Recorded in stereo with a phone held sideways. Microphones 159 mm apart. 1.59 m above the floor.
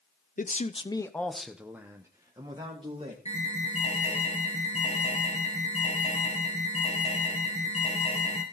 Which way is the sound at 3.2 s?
45° left (ahead or behind).